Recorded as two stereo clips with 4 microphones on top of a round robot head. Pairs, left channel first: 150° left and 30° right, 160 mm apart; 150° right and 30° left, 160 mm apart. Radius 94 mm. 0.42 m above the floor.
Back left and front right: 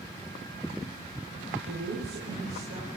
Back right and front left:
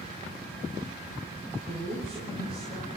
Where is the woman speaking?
55° right, 9 m.